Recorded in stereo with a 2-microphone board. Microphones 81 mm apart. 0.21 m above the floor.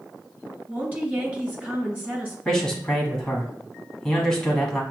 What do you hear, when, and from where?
0.7 s a woman speaking: 20° right (ahead or behind), 2 m
2.5 s a man speaking: 5° left (ahead or behind), 1.3 m